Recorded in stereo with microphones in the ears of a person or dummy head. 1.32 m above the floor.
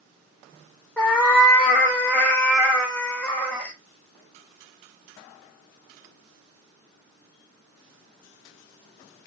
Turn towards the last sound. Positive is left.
turn(degrees=10)  # may be behind; listen again after turning